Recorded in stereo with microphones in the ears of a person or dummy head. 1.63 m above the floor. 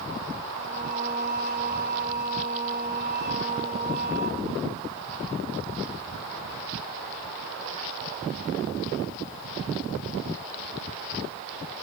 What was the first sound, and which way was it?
Singing, 40° right (ahead or behind).